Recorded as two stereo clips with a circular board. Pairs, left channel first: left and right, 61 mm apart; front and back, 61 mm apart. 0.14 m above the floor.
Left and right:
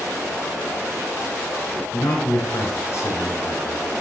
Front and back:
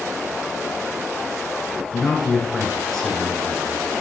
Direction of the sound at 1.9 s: 80° left.